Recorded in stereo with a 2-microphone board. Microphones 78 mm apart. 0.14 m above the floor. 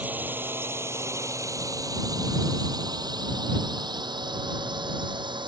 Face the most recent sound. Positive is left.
turn(degrees=-75)  # may be behind; listen again after turning